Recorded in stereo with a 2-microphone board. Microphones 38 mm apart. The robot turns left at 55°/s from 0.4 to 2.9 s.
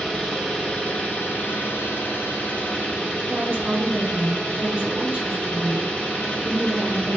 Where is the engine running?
165° left, 1.4 m; by 7.2 s 30° left, 1.4 m.